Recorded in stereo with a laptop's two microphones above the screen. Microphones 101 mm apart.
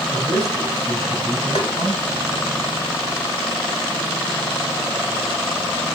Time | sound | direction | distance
0.1 | a man speaking | 60° left (ahead or behind) | 5 m
1.6 | tapping | 70° left (ahead or behind) | 1.6 m